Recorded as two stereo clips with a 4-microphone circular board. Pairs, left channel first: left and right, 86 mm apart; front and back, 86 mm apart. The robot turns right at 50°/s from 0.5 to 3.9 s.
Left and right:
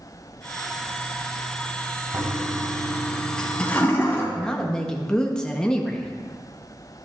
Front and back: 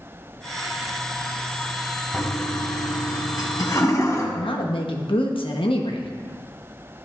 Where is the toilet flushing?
55° right, 1.8 m; by 4.2 s 35° left, 1.8 m.